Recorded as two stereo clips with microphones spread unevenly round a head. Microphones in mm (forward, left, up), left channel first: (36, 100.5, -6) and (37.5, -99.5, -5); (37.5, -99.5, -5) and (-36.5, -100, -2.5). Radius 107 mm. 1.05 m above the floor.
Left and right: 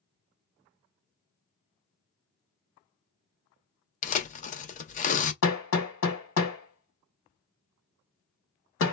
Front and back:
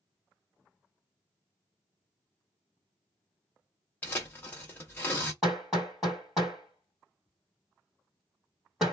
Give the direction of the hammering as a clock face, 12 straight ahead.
9 o'clock.